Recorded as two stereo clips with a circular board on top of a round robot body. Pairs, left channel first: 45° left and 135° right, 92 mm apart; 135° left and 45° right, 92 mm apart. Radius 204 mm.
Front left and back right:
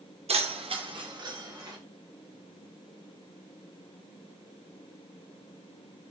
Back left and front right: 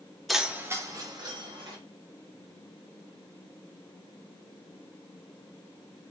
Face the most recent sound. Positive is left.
turn(degrees=-80)